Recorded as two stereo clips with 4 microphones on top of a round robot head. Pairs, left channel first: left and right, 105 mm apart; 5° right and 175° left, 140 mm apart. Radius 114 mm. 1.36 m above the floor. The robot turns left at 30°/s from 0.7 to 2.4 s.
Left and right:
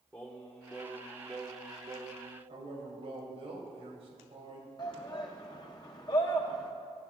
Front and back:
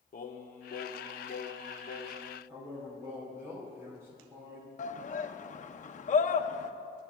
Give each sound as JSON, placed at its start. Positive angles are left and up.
{"t": 0.1, "sound": "singing", "azimuth_deg": 15, "distance_m": 0.8}
{"t": 2.5, "sound": "a man speaking", "azimuth_deg": -115, "distance_m": 2.5}
{"t": 4.8, "sound": "a shout", "azimuth_deg": 30, "distance_m": 0.7}